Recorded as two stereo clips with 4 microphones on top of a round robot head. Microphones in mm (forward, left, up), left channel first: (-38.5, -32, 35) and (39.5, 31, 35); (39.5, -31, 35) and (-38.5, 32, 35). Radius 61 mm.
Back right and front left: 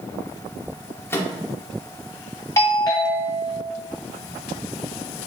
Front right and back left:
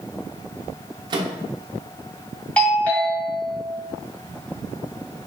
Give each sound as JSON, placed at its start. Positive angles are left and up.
{"t": 1.1, "sound": "a microwave", "azimuth_deg": 160, "distance_m": 0.6}
{"t": 2.6, "sound": "a doorbell", "azimuth_deg": -105, "distance_m": 1.7}